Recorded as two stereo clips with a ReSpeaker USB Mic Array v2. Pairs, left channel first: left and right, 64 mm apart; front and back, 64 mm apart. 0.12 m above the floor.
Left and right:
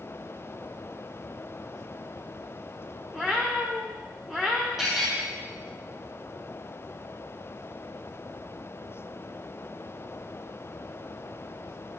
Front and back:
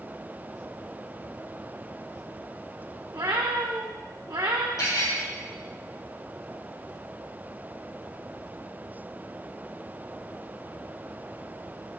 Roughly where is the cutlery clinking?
Ahead.